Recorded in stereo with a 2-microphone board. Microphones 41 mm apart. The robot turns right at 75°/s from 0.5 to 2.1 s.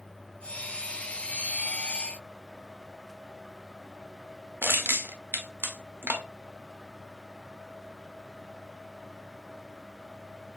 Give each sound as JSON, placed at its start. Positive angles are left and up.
{"t": 4.6, "sound": "crushing", "side_deg": -75, "distance_m": 0.7}